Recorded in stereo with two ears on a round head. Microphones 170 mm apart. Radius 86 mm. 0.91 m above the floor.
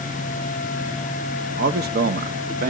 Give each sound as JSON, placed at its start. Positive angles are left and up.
{"t": 1.6, "sound": "a man speaking", "side_deg": -50, "distance_m": 0.7}